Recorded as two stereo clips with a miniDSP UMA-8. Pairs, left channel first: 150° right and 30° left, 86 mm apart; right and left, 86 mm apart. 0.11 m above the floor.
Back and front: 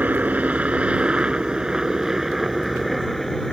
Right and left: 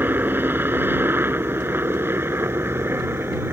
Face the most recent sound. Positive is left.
turn(degrees=125)